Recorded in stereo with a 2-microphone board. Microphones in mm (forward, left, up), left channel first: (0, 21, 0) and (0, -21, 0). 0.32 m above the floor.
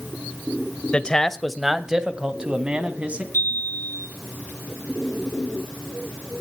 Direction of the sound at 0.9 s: 25° left (ahead or behind).